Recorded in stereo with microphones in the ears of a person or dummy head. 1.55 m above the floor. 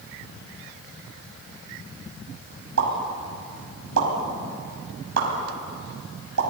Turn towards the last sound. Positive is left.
turn(degrees=-85)